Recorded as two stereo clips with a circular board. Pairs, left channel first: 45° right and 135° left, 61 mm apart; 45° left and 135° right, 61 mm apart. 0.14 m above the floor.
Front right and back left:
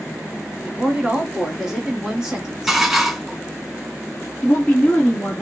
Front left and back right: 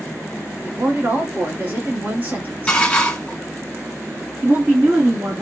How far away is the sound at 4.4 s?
About 2.5 m.